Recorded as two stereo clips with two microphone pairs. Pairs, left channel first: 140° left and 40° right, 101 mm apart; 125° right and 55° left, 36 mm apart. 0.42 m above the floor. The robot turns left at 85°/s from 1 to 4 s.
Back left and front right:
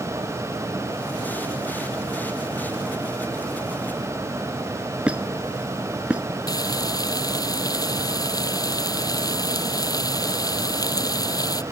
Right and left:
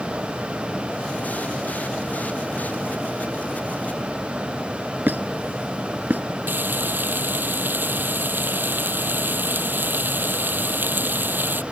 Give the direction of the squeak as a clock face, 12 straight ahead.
11 o'clock.